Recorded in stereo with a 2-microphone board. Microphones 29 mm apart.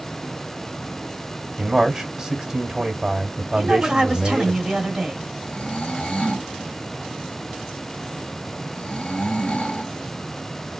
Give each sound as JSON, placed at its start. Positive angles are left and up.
{"t": 1.6, "sound": "a man speaking", "side_deg": -25, "distance_m": 1.4}
{"t": 3.5, "sound": "a woman speaking", "side_deg": -30, "distance_m": 1.6}
{"t": 5.4, "sound": "snoring", "side_deg": 45, "distance_m": 1.3}